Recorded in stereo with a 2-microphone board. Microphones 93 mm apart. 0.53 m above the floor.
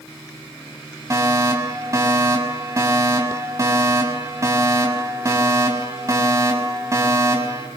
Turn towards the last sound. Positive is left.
turn(degrees=-30)  # may be behind; listen again after turning